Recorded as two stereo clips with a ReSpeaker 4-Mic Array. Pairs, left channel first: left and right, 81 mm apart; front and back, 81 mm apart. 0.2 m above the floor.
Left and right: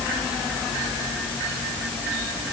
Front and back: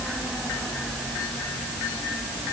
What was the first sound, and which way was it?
Only background noise.